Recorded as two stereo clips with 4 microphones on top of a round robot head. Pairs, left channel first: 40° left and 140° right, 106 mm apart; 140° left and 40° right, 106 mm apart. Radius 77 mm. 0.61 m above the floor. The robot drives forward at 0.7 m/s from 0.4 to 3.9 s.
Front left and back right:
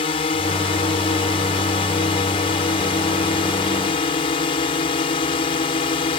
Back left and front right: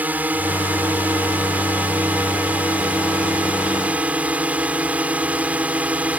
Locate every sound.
0.0 s a drone: 35° left